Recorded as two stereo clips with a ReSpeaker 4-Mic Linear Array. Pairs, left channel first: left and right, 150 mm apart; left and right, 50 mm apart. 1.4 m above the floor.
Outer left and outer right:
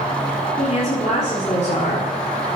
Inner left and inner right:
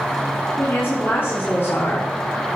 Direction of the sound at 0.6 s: 50° left (ahead or behind).